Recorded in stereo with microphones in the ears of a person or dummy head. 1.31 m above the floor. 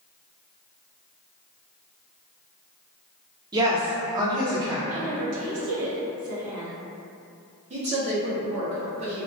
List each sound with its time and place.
3.5 s a woman speaking: 25° right (ahead or behind), 0.6 m
4.9 s a woman speaking: 85° right, 0.9 m
7.7 s a woman speaking: 35° right (ahead or behind), 0.7 m